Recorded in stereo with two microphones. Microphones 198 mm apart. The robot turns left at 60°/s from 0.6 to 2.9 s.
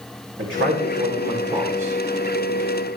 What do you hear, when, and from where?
0.4 s a man speaking: 85° right, 1.6 m; by 2.0 s 5° right (ahead or behind), 1.6 m